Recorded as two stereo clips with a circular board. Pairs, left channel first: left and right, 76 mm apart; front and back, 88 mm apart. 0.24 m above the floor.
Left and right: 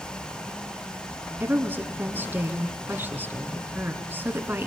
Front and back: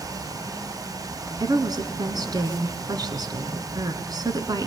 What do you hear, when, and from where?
1.4 s a woman speaking: 150° right, 2.5 m